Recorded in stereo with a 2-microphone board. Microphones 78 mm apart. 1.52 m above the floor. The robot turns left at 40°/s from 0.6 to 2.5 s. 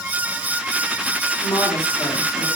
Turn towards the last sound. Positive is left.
turn(degrees=50)